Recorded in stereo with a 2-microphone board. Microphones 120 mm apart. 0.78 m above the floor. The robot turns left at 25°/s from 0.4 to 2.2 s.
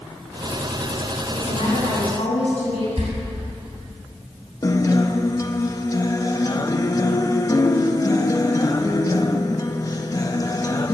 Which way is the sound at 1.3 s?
55° left (ahead or behind).